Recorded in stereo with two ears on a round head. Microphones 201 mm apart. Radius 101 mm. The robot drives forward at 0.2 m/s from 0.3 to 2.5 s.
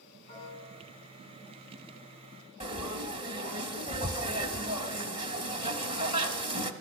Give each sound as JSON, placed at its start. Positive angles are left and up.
{"t": 0.3, "sound": "a piano", "side_deg": 20, "distance_m": 7.0}
{"t": 2.6, "sound": "frying", "side_deg": -25, "distance_m": 1.1}